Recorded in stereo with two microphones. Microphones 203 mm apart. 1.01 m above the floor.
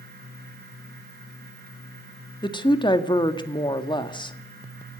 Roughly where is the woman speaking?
Left.